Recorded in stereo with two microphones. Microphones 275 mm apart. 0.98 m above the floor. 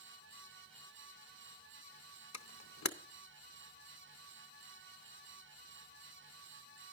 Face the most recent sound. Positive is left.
turn(degrees=75)  # may be behind; listen again after turning